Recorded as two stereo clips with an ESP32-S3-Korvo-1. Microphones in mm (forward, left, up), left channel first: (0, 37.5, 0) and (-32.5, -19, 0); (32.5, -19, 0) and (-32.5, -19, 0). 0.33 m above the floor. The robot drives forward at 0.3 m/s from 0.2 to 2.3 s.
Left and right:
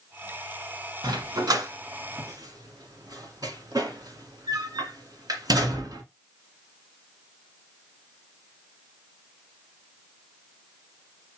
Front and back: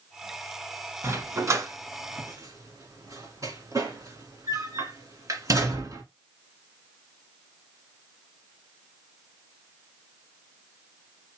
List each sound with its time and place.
1.0 s a dog barking: 130° right, 1.2 m; by 6.0 s 140° right, 1.4 m